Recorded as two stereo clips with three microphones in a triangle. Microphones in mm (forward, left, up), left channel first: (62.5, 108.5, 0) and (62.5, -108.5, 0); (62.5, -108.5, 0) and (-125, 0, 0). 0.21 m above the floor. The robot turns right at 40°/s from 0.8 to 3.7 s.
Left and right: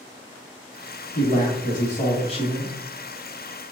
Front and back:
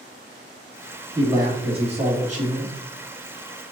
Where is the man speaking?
85° left, 1.2 m; by 2.8 s 145° left, 1.2 m.